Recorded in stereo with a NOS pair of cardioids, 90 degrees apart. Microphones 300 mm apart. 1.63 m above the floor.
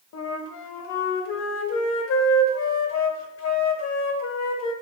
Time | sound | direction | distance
0.1 | a flute | 60° left | 0.6 m